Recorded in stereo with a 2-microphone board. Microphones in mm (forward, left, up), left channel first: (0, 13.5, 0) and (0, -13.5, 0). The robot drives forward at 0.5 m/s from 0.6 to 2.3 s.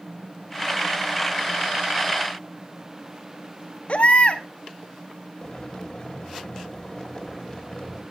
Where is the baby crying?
55° left (ahead or behind), 1.2 m.